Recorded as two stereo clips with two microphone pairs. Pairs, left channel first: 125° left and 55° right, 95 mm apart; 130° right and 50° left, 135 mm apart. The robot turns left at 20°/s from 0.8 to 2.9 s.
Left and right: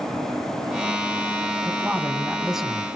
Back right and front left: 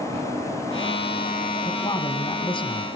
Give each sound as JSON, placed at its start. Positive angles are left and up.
{"t": 1.6, "sound": "a man speaking", "azimuth_deg": -120, "distance_m": 1.7}